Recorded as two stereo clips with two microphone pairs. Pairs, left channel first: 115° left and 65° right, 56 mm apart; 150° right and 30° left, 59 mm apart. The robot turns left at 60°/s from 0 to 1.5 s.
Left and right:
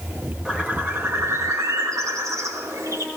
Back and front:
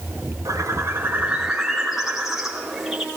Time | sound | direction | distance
0.5 | a bird | 10° left | 4.5 m